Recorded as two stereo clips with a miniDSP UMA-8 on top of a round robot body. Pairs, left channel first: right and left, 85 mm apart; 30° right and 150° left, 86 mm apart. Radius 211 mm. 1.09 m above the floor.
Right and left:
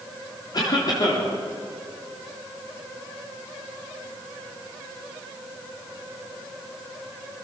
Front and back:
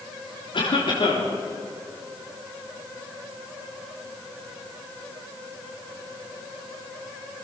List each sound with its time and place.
0.5 s a cough: 50° right, 4 m